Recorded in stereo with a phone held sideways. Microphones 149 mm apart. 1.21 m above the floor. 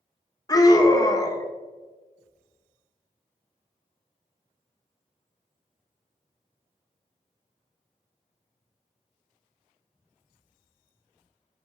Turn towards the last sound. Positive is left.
turn(degrees=25)  # may be behind; listen again after turning